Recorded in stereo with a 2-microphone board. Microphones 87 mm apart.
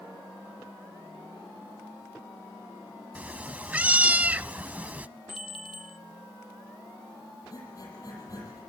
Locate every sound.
3.1 s a cat meowing: 15° right (ahead or behind), 0.5 m
5.3 s a bell: 90° left, 1.0 m
7.5 s breathing: 40° left (ahead or behind), 8.5 m